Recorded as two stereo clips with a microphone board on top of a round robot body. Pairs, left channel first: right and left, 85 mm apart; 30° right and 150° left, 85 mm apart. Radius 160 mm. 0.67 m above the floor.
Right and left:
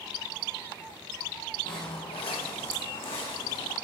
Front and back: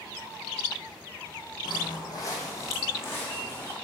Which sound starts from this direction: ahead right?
Footsteps, at 1.6 s.